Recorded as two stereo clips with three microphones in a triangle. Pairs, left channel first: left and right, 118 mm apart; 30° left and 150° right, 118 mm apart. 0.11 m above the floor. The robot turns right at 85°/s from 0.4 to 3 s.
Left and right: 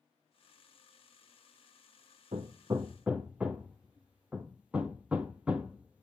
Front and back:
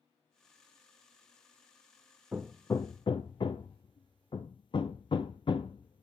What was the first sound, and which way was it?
Hammering, 70° right.